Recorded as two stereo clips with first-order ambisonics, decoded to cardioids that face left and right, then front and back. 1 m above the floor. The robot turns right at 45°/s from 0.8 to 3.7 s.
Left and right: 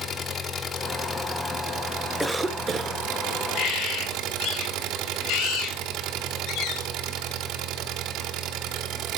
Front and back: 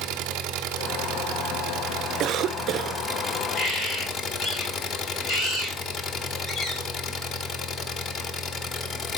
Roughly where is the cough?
Behind.